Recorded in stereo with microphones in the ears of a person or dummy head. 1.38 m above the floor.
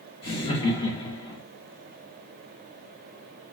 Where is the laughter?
30° left (ahead or behind), 1.3 m.